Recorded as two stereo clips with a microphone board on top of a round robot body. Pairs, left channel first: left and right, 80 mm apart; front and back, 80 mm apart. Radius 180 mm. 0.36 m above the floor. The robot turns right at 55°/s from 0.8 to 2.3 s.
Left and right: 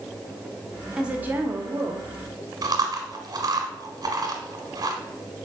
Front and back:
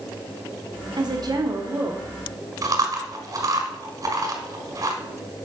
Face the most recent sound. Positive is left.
turn(degrees=-130)